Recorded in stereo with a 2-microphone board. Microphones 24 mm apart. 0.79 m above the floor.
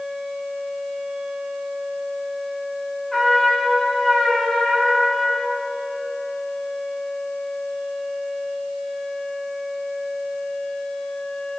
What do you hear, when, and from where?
3.1 s a trumpet: 25° left (ahead or behind), 2.5 m